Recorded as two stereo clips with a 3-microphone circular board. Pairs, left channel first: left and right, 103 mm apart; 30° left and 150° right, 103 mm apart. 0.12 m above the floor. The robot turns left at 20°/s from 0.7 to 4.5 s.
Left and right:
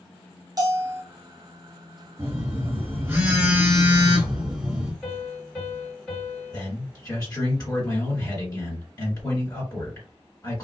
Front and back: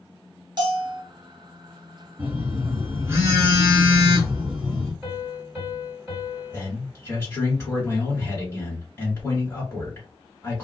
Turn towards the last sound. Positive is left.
turn(degrees=80)